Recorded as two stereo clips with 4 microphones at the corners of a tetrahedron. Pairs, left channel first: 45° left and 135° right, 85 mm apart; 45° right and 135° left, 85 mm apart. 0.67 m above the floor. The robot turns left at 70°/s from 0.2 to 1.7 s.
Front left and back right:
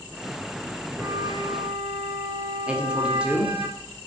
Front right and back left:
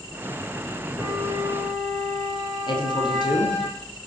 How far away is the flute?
About 3.5 m.